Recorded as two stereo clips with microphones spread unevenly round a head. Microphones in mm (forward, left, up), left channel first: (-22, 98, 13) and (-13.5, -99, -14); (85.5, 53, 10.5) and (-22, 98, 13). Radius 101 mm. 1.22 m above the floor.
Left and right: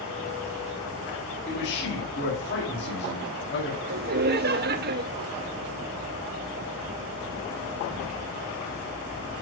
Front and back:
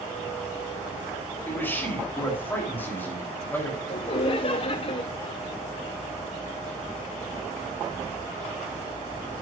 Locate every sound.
1.5 s a man speaking: 50° left, 3.5 m
3.9 s laughter: 65° right, 0.6 m